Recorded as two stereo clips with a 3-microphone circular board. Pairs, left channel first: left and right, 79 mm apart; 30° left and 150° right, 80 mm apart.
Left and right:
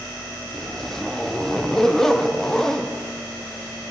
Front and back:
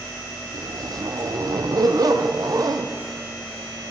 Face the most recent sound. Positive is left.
turn(degrees=175)